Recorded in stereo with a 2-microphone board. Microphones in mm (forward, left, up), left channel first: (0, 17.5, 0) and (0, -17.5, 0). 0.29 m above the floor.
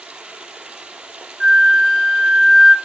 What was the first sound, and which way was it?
Running water, 25° right (ahead or behind).